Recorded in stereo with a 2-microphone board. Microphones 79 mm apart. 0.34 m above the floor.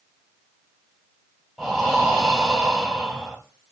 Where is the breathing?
Centre (ahead or behind), 1.4 m.